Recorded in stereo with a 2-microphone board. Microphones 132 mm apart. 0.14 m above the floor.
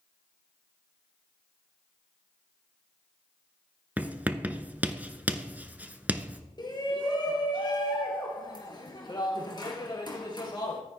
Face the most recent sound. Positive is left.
turn(degrees=35)  # may be behind; listen again after turning